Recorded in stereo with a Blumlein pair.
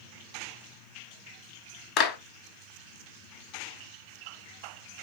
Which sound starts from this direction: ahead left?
A clap, at 2.0 s.